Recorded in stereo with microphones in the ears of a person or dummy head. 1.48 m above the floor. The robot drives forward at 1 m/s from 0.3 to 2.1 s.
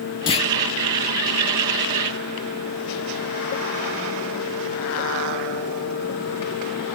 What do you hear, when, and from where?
0.3 s a clunk: 30° left (ahead or behind), 1.2 m; by 0.5 s 35° left (ahead or behind), 1.1 m